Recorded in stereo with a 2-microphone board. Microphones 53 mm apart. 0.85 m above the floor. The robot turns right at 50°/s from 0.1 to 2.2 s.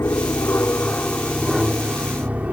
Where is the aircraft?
105° left; by 2.5 s 150° right.